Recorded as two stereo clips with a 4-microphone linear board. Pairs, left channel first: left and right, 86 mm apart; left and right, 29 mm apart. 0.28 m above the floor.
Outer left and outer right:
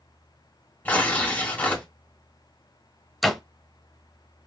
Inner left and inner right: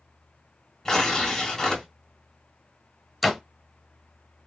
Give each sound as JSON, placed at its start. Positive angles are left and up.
{"t": 0.8, "sound": "tearing paper", "side_deg": 20, "distance_m": 1.6}
{"t": 3.2, "sound": "a door slam", "side_deg": 0, "distance_m": 0.8}